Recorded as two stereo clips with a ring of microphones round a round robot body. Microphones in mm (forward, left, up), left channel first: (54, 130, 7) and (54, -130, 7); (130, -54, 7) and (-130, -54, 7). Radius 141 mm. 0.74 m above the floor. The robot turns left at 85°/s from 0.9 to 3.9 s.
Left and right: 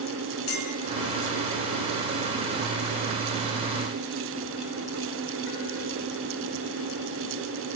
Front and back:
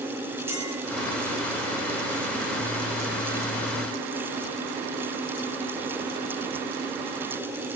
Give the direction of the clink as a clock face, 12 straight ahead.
9 o'clock.